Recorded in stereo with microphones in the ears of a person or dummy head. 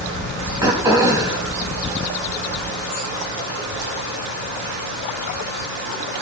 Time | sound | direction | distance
0.6 | throat clearing | 20° right (ahead or behind) | 2 m